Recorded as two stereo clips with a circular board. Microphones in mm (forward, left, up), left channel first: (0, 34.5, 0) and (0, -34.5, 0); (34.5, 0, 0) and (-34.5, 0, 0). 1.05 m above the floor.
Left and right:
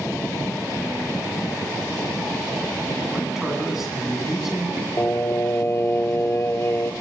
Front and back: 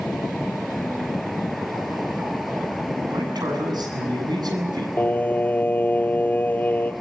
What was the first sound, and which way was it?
A man speaking, 175° right.